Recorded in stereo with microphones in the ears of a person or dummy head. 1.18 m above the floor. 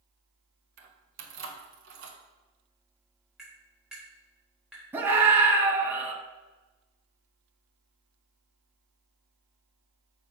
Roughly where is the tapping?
Centre.